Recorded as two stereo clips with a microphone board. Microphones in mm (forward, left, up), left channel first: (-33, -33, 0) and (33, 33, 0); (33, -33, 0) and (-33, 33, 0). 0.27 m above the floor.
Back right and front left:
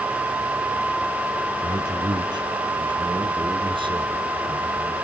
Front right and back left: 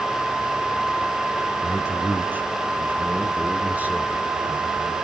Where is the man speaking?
75° left, 1.7 m; by 4.9 s 60° left, 4 m.